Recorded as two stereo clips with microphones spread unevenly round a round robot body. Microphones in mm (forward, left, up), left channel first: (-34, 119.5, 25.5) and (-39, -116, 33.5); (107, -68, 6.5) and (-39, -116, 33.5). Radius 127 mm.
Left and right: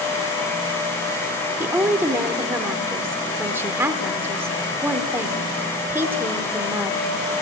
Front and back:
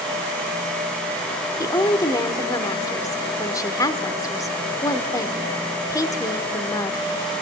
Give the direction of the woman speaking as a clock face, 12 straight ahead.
12 o'clock.